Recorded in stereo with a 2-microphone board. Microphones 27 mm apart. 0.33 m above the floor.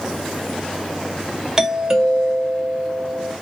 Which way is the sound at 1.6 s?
15° right (ahead or behind).